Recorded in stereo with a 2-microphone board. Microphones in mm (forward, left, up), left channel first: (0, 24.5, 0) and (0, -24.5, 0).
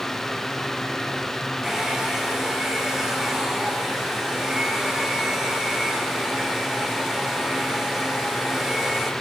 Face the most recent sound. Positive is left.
turn(degrees=-15)  # may be behind; listen again after turning